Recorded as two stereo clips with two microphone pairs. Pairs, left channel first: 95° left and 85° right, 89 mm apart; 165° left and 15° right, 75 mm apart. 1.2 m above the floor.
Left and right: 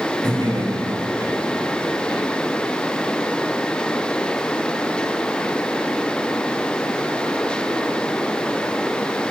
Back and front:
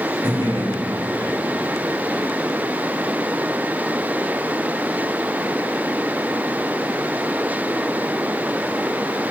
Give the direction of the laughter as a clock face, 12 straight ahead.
1 o'clock.